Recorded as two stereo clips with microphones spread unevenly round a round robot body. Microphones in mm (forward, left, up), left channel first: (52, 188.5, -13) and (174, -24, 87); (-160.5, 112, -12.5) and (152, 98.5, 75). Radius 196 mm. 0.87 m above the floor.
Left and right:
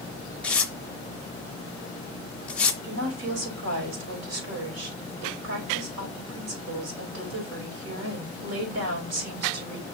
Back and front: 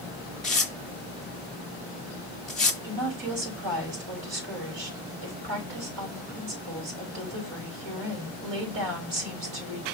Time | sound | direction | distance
0.4 | tearing paper | 45° right | 0.6 m
2.8 | a woman speaking | 50° right | 4.5 m